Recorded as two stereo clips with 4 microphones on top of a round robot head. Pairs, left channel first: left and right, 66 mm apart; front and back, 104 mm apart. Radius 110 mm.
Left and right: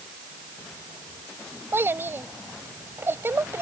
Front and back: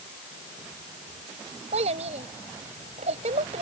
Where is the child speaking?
150° right.